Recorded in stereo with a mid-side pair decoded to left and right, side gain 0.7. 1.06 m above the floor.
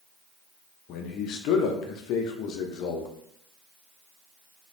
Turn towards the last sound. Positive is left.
turn(degrees=60)